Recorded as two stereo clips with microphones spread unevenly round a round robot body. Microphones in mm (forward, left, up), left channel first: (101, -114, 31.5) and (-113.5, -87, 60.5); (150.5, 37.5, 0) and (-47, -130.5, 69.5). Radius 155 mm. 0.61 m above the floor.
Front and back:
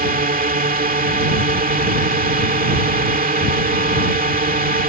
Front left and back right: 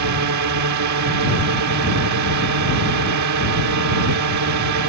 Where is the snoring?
No snoring in this recording.